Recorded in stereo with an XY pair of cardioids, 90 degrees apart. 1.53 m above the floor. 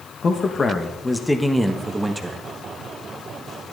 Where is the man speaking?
50° left, 1.4 m; by 2.4 s 25° right, 1.8 m.